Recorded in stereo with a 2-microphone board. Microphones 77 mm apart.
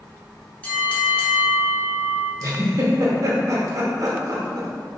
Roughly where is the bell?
Centre.